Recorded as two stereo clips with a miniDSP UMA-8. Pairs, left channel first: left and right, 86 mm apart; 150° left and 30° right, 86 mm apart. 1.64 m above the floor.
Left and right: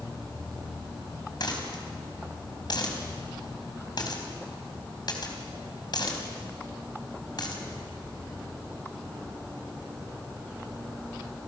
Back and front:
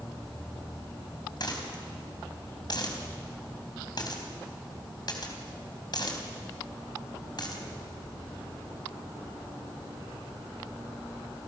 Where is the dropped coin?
120° left, 3.5 m.